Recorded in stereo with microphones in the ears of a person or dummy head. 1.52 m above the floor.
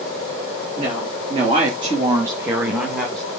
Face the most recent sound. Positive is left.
turn(degrees=10)  # may be behind; listen again after turning